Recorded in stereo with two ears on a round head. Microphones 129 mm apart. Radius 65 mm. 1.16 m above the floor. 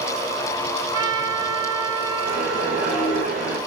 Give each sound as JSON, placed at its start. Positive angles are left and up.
{"t": 0.9, "sound": "a trumpet", "side_deg": -30, "distance_m": 7.0}
{"t": 2.2, "sound": "a whoosh", "side_deg": -65, "distance_m": 5.0}